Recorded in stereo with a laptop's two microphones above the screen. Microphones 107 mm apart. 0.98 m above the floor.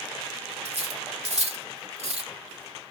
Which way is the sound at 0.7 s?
85° right.